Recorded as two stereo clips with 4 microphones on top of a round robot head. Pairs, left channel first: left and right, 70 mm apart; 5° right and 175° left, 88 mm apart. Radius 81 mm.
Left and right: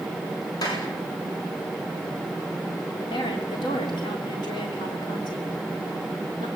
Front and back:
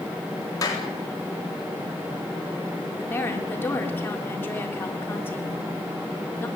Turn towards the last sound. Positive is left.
turn(degrees=65)